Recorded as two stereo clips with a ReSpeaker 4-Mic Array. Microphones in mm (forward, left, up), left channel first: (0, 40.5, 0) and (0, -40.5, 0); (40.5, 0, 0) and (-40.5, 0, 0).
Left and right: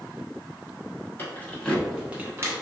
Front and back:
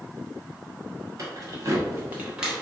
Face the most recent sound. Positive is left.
turn(degrees=-100)